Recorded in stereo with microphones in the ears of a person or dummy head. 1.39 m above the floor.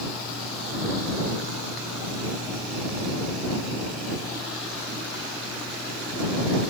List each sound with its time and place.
Only background noise.